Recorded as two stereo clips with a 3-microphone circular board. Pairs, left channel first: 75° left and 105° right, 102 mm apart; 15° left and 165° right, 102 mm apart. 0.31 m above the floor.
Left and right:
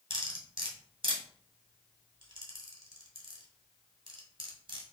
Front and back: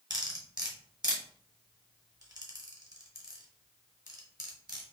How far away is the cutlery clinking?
About 1.3 m.